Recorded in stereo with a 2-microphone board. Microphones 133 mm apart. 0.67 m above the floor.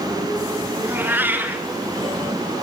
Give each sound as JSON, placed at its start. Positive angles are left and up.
{"t": 0.8, "sound": "a cat meowing", "side_deg": -15, "distance_m": 4.0}